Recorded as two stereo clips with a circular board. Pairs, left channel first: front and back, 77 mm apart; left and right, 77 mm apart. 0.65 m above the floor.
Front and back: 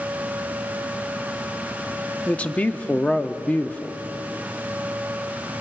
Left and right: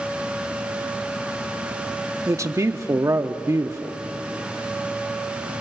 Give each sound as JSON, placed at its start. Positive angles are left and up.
{"t": 2.3, "sound": "a man speaking", "azimuth_deg": -65, "distance_m": 1.0}